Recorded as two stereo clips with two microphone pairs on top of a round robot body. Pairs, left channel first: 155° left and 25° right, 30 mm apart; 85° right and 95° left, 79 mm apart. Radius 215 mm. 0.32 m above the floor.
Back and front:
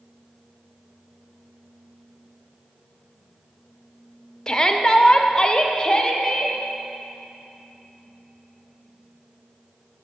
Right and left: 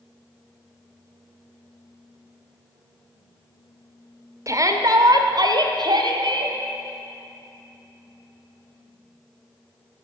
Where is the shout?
100° left, 1.3 m; by 6.5 s 90° left, 2.0 m.